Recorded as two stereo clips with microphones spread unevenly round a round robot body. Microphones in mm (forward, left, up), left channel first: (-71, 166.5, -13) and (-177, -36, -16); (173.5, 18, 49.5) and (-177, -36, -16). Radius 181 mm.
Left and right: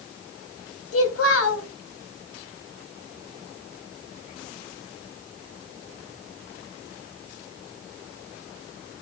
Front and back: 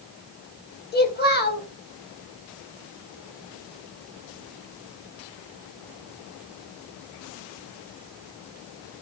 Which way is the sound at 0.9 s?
75° left.